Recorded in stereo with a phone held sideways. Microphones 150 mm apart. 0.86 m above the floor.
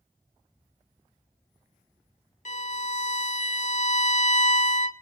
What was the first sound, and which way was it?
A violin, 60° left (ahead or behind).